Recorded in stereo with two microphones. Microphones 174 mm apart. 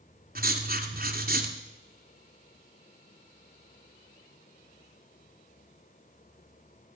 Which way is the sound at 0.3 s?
60° right (ahead or behind).